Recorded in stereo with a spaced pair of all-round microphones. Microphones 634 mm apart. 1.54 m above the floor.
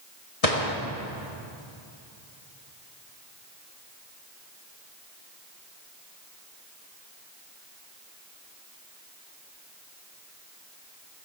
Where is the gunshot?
60° left (ahead or behind), 1.5 m.